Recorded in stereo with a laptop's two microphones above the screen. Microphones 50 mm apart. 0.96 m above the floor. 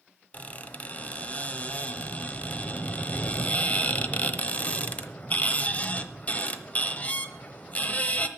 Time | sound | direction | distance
0.3 | a squeak | 30° left (ahead or behind) | 0.9 m